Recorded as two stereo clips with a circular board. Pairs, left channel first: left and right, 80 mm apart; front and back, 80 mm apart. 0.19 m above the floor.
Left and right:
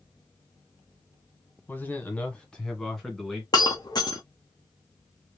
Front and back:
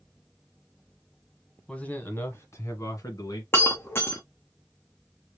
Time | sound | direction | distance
1.7 | a man speaking | 65° left | 1.1 m
3.5 | breaking glass | 60° left | 1.2 m